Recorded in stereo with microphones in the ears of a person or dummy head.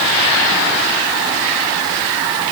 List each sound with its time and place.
Only background noise.